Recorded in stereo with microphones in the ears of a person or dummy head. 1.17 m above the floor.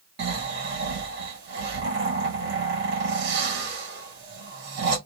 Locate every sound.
0.2 s snoring: 55° right (ahead or behind), 1.3 m